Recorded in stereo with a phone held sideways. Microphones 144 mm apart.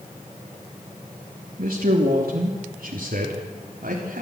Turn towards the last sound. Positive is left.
turn(degrees=-80)